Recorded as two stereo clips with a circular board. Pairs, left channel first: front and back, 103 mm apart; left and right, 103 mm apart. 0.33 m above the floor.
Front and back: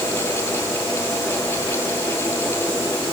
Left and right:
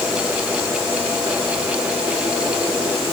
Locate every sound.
Only background noise.